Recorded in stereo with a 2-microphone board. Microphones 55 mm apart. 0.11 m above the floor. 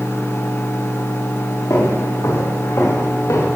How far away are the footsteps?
About 5 m.